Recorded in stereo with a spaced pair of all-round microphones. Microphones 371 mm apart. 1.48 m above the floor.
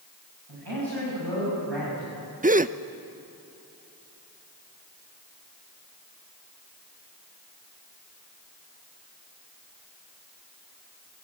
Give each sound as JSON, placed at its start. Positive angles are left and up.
{"t": 0.5, "sound": "a man speaking", "side_deg": -85, "distance_m": 8.5}
{"t": 2.4, "sound": "a gasp", "side_deg": -20, "distance_m": 0.6}